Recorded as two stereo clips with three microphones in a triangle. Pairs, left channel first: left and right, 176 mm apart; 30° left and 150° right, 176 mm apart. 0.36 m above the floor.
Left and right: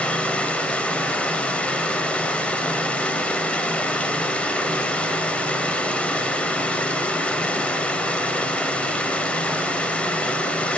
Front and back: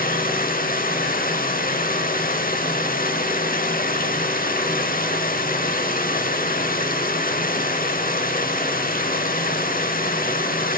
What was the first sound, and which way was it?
Running water, 10° left.